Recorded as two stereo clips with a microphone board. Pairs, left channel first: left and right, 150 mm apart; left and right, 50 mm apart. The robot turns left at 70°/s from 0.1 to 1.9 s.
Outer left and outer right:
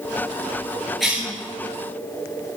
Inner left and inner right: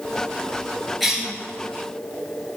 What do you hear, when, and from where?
1.0 s a cough: centre (ahead or behind), 3 m; by 1.3 s 20° right (ahead or behind), 3 m